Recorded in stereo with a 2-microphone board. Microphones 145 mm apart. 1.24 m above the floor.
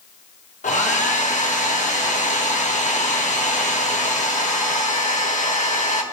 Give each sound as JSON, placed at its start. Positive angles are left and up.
{"t": 0.6, "sound": "a hair dryer", "side_deg": 55, "distance_m": 1.4}